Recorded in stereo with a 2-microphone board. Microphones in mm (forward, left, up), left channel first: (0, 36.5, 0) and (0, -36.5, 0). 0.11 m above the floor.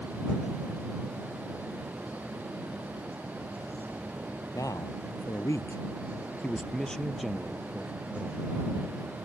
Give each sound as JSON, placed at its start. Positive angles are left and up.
{"t": 4.5, "sound": "a man speaking", "side_deg": 55}